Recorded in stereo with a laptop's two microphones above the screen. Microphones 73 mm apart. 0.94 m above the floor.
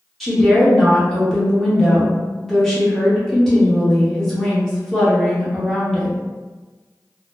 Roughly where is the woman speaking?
Centre.